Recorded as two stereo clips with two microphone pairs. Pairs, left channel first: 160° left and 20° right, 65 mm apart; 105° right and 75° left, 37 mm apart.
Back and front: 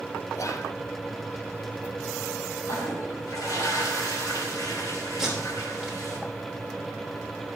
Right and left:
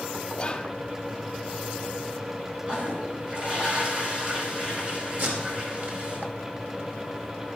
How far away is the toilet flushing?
About 3 m.